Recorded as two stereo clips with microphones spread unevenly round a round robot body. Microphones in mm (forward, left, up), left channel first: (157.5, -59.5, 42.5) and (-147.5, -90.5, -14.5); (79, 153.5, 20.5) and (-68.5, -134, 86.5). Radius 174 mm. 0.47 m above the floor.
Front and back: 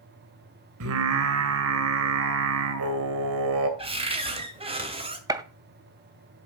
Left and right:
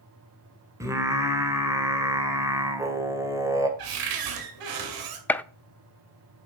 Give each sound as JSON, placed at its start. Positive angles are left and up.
{"t": 0.8, "sound": "singing", "azimuth_deg": 155, "distance_m": 2.0}
{"t": 3.8, "sound": "a cupboard door", "azimuth_deg": -110, "distance_m": 2.5}
{"t": 5.3, "sound": "a gunshot", "azimuth_deg": 130, "distance_m": 0.6}